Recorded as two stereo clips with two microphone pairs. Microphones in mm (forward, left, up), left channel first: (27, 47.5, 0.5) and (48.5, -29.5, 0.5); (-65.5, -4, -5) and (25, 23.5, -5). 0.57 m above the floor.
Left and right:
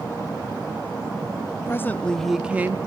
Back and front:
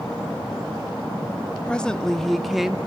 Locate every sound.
1.7 s a woman speaking: 130° left, 0.7 m; by 2.8 s 65° right, 0.6 m